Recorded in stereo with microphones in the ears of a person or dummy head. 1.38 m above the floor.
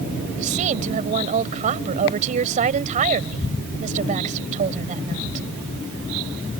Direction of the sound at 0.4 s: 45° right (ahead or behind).